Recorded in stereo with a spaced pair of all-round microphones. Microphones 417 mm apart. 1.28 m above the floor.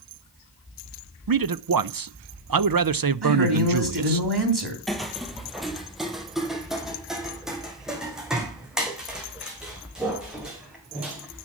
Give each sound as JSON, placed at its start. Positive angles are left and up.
{"t": 1.3, "sound": "a man speaking", "side_deg": -50, "distance_m": 0.6}
{"t": 3.2, "sound": "a man speaking", "side_deg": -65, "distance_m": 3.0}
{"t": 4.9, "sound": "footsteps", "side_deg": 0, "distance_m": 1.4}